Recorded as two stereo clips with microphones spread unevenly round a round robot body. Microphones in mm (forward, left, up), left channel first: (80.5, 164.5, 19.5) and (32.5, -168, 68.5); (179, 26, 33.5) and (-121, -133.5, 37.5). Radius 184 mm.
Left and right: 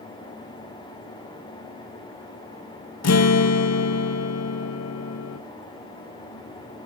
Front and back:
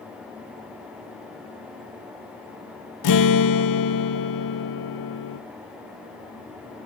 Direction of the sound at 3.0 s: 55° left.